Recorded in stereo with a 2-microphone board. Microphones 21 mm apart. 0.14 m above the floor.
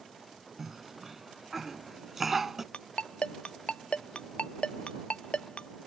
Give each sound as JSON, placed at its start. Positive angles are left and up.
{"t": 0.6, "sound": "a cough", "side_deg": -10}
{"t": 2.7, "sound": "a ringtone", "side_deg": 65}